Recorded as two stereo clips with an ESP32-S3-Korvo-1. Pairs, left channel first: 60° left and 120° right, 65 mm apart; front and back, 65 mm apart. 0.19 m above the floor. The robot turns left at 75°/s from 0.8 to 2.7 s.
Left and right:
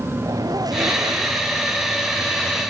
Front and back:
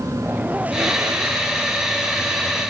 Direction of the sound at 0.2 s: 110° right.